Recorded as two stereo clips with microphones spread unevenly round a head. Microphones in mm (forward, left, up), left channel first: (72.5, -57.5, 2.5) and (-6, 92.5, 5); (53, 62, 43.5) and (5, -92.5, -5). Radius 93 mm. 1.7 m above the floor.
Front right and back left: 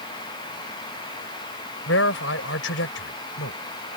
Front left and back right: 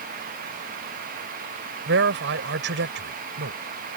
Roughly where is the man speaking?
Right.